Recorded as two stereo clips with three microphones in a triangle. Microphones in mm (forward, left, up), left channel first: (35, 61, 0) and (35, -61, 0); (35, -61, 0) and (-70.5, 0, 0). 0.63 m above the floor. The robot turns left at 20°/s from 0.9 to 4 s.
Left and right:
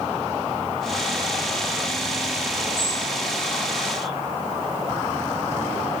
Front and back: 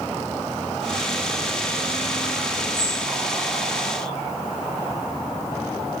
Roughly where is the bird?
Left.